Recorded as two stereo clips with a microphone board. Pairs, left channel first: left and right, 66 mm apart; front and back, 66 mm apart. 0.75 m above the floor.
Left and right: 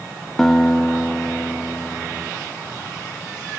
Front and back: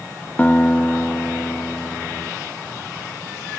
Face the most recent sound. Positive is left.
turn(degrees=10)